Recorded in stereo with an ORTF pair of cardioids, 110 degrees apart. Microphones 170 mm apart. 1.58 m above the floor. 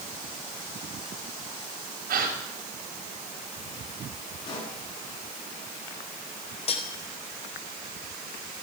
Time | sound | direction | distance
2.1 | a gasp | 60° right | 5.5 m
4.5 | a pop | 25° left | 9 m
6.7 | cutlery clinking | 35° left | 4 m